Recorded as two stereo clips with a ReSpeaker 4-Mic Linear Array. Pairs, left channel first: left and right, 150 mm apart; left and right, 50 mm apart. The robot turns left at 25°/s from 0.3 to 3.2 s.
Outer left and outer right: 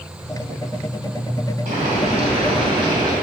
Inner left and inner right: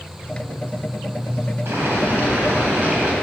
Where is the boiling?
115° right, 2 m; by 3.1 s 150° right, 2 m.